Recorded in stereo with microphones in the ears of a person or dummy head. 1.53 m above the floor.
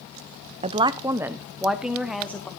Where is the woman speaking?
30° right (ahead or behind), 0.6 m; by 2.5 s centre (ahead or behind), 1.4 m.